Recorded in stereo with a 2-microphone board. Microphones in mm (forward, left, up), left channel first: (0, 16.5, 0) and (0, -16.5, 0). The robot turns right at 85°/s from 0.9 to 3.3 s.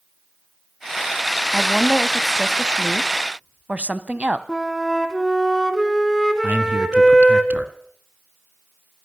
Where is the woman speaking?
115° left, 1.3 m; by 4.4 s 95° right, 1.3 m.